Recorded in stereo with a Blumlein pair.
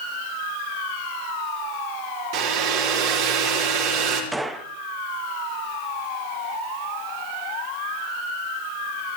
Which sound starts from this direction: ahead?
A gunshot, at 4.3 s.